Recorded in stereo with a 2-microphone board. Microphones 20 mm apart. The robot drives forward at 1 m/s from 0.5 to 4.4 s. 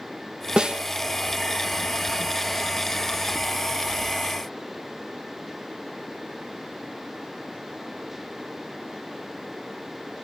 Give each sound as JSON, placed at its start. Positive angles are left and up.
{"t": 0.6, "sound": "a snare drum", "side_deg": -45, "distance_m": 1.7}